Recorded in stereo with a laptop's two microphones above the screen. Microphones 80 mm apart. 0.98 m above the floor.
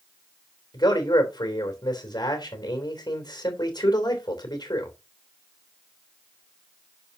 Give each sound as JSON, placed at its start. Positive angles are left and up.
{"t": 0.7, "sound": "a man speaking", "side_deg": 60, "distance_m": 3.0}